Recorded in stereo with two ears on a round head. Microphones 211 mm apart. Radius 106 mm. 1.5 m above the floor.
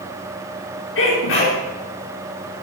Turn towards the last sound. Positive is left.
turn(degrees=60)  # may be behind; listen again after turning